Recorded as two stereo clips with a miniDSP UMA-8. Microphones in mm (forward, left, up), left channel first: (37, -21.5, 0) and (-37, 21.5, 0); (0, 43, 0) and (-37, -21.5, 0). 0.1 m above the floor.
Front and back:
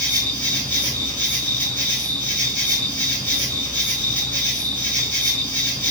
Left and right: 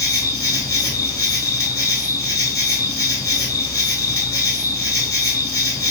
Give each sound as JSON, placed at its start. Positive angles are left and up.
{"t": 0.0, "sound": "an insect", "azimuth_deg": 35, "distance_m": 1.5}